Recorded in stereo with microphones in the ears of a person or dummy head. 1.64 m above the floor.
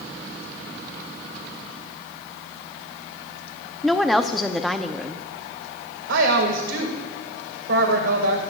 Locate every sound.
3.8 s a woman speaking: centre (ahead or behind), 0.6 m
6.1 s a woman speaking: 70° right (ahead or behind), 2 m